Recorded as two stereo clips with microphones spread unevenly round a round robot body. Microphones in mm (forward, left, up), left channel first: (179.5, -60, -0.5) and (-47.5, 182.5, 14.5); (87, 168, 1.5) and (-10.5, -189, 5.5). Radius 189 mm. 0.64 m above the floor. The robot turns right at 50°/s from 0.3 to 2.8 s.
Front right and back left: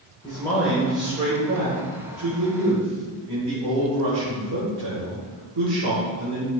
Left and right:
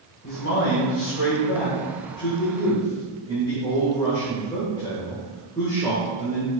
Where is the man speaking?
30° left, 3 m; by 6.5 s 155° left, 3 m.